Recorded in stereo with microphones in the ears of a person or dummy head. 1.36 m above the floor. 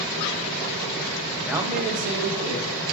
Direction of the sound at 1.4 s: 10° left (ahead or behind).